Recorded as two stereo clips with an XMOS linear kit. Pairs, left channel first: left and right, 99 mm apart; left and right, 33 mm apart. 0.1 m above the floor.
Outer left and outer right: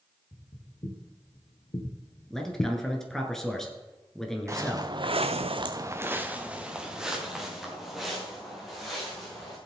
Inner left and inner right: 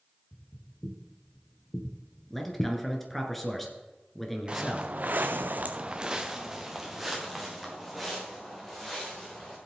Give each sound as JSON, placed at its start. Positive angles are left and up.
{"t": 0.3, "sound": "footsteps", "side_deg": 70, "distance_m": 3.0}
{"t": 2.3, "sound": "a man speaking", "side_deg": 5, "distance_m": 1.6}
{"t": 4.5, "sound": "footsteps", "side_deg": -30, "distance_m": 1.3}